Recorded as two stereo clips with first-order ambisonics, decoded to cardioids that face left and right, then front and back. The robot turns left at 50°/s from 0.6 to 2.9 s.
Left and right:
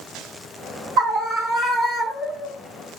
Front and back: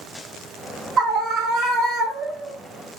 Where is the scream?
135° right, 0.7 m; by 2.5 s 145° left, 0.7 m.